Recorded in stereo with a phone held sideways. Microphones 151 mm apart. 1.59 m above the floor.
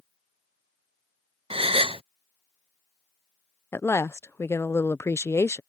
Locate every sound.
1.5 s a gasp: 35° right (ahead or behind)
3.7 s a woman speaking: 15° left (ahead or behind)